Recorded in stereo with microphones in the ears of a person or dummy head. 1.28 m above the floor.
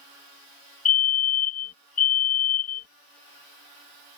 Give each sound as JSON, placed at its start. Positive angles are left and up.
{"t": 0.8, "sound": "a fire alarm", "side_deg": 35}